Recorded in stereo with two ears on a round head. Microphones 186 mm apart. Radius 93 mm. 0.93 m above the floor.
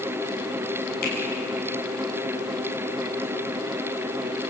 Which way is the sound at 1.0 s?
45° left (ahead or behind).